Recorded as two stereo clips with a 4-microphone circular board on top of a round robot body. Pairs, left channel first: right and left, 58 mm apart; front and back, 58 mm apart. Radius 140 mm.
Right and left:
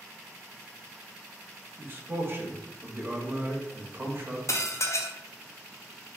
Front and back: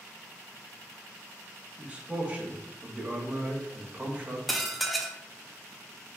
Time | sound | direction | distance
1.8 | a man speaking | 120° left | 0.9 m
4.5 | dishes clattering | 90° right | 0.5 m